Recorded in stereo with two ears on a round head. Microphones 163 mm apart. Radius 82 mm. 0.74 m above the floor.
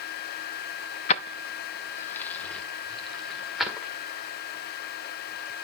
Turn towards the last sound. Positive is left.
turn(degrees=0)  # may be behind; listen again after turning